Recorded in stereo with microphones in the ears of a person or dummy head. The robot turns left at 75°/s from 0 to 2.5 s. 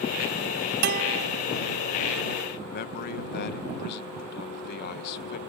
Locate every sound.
0.8 s a guitar: 115° right; by 1.2 s 150° right
2.6 s a man speaking: 60° left (ahead or behind)